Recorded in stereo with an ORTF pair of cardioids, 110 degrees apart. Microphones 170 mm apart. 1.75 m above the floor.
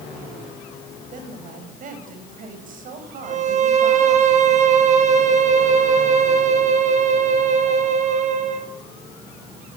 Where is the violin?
50° right, 4 m.